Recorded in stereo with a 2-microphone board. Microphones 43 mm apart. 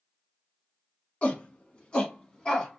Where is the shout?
30° left (ahead or behind), 1.3 m; by 2.8 s 15° left (ahead or behind), 1.1 m.